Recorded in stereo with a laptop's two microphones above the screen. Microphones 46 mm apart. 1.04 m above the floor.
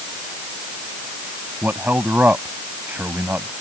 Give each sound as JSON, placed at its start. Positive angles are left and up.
{"t": 1.6, "sound": "a man speaking", "side_deg": -45}